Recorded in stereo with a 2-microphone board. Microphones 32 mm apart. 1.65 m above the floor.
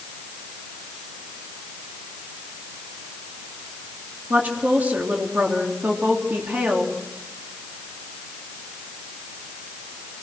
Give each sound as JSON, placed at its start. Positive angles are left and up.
{"t": 4.3, "sound": "a woman speaking", "side_deg": -55, "distance_m": 3.5}